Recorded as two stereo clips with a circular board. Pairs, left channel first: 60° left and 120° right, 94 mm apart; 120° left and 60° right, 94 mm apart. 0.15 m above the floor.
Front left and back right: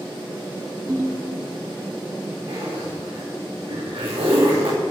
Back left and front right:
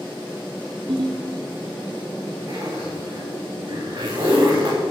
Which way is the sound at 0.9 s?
60° right.